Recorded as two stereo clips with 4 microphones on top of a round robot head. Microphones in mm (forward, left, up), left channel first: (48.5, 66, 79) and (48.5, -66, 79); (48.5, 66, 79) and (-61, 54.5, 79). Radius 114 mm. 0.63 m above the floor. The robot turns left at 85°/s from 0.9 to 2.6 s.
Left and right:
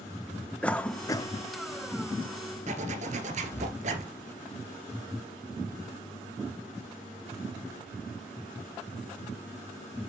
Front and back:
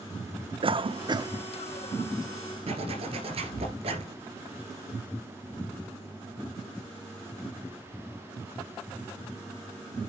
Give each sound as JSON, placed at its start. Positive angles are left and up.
{"t": 0.6, "sound": "a cough", "azimuth_deg": 170, "distance_m": 1.4}
{"t": 2.7, "sound": "a zipper", "azimuth_deg": -130, "distance_m": 2.0}